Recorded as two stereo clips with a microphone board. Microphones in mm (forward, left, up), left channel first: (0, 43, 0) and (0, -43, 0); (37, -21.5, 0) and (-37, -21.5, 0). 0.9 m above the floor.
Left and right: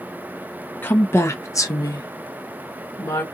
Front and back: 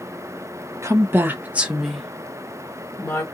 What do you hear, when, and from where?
0.8 s a woman speaking: 150° left, 1.0 m; by 3.2 s 50° left, 1.1 m